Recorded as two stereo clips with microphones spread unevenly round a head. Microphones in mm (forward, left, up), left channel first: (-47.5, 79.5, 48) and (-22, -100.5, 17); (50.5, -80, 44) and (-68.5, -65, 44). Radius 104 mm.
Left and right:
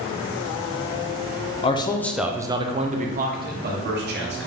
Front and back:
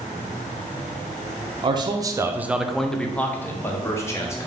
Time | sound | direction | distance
1.6 | a man speaking | 155° left | 0.5 m